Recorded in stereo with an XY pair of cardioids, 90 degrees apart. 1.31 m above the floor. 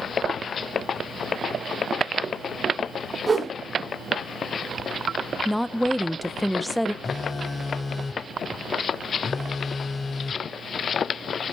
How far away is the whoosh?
About 3.5 m.